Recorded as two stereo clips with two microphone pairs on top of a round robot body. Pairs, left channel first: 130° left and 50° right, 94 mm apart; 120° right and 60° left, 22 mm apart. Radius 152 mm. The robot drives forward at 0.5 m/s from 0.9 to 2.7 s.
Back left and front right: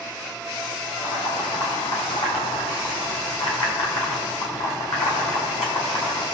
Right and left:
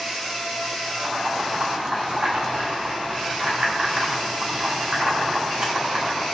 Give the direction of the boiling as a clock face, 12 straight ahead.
9 o'clock.